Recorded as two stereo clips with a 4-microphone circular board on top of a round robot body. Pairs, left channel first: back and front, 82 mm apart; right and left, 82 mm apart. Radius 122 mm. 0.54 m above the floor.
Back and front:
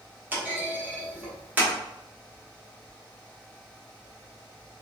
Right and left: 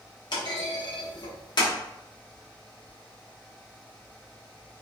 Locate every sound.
0.3 s a clunk: 65° right, 1.0 m